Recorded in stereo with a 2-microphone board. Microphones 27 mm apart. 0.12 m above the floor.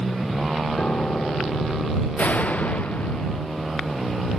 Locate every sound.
0.8 s a piano: 65° left (ahead or behind)
2.2 s a door slam: 70° left (ahead or behind)